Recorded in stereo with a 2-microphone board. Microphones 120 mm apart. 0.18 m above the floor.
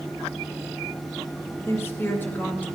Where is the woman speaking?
20° left (ahead or behind), 2.5 m; by 2.8 s 15° left (ahead or behind), 1.8 m.